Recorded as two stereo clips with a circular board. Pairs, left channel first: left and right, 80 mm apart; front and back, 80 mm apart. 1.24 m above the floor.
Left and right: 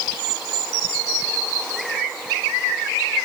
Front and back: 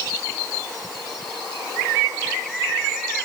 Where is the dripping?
I don't hear dripping.